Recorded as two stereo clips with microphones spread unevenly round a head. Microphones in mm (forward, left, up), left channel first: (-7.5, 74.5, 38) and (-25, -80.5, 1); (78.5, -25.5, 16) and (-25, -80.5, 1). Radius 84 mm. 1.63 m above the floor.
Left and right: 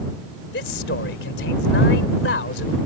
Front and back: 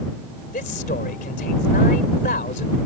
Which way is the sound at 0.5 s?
60° left.